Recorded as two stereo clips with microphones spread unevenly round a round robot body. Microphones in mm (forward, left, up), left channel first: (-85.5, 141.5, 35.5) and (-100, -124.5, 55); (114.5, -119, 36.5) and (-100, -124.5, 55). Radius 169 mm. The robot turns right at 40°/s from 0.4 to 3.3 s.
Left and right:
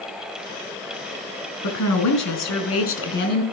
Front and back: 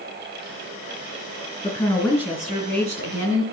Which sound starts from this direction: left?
A woman speaking, at 1.6 s.